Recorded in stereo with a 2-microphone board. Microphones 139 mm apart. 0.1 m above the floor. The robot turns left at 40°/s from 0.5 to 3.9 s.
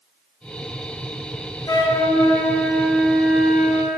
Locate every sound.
1.7 s a flute: 60° left, 0.8 m; by 4.0 s 30° right, 0.8 m